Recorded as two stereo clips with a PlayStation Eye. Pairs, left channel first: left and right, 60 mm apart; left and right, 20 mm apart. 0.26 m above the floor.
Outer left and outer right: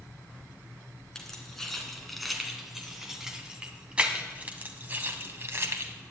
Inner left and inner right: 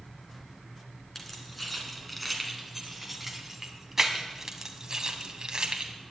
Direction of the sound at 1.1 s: 10° left (ahead or behind).